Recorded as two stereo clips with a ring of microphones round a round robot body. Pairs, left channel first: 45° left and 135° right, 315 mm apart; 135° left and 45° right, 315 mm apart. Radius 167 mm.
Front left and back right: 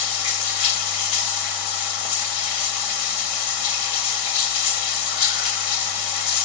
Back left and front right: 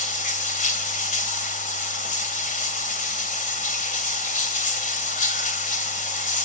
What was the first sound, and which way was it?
Running water, 65° left.